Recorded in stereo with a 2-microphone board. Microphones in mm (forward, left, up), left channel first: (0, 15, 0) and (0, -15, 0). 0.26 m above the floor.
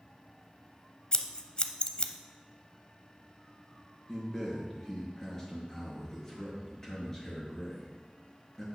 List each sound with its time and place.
1.1 s scissors: 35° left (ahead or behind), 0.6 m
4.1 s a man speaking: 15° left (ahead or behind), 4 m